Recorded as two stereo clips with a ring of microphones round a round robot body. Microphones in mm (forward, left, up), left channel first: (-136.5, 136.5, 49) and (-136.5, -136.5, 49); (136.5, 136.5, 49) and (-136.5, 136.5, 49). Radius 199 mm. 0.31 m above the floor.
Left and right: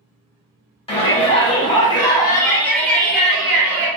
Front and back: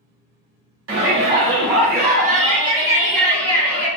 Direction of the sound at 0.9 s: 155° left.